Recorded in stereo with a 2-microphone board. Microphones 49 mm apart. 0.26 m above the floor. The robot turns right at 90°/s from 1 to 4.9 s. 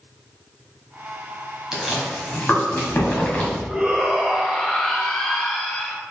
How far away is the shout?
About 1.3 m.